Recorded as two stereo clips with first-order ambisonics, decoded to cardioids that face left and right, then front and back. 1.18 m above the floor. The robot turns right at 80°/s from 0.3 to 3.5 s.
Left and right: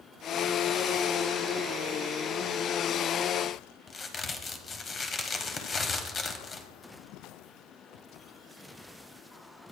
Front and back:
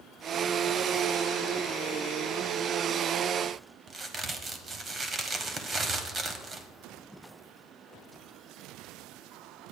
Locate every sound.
3.9 s a crack: 135° left, 1.1 m